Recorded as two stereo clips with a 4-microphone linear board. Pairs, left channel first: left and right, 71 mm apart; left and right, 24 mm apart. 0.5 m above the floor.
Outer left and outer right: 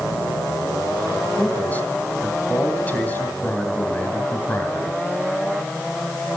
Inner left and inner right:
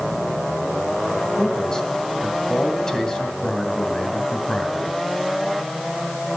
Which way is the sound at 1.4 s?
25° left (ahead or behind).